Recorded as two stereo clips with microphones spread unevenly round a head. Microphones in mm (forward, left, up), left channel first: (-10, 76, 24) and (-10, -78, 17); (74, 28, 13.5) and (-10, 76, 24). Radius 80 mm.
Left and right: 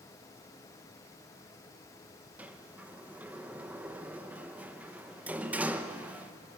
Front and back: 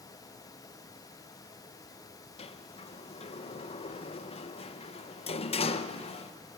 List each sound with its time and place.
2.4 s a sliding door: 10° right, 0.9 m